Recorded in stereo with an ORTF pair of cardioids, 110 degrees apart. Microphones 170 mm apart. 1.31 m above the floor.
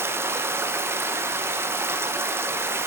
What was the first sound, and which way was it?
Running water, 15° right.